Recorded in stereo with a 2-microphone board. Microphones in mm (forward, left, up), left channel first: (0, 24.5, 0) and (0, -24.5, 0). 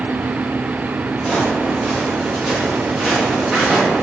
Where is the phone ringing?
I don't hear a phone ringing.